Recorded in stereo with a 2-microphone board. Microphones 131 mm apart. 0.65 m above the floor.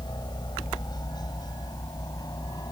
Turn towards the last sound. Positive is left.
turn(degrees=30)  # may be behind; listen again after turning